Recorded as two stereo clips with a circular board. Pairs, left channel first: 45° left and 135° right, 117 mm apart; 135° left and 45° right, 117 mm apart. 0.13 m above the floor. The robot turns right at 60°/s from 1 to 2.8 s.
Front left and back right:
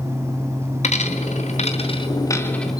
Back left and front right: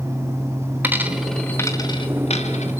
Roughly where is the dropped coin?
Ahead left.